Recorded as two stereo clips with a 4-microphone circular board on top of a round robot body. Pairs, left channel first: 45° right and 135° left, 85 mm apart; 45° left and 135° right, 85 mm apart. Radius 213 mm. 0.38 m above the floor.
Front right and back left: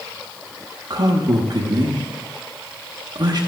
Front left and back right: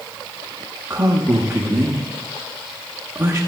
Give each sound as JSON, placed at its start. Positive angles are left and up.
{"t": 0.9, "sound": "a man speaking", "azimuth_deg": 160, "distance_m": 1.4}